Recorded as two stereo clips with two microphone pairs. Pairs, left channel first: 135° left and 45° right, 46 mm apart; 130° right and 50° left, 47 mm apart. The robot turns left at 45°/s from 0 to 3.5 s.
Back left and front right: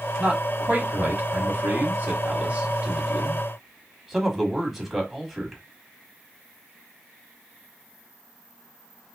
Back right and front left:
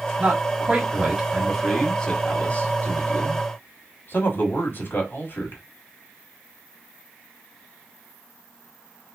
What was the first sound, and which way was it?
A man speaking, 15° left.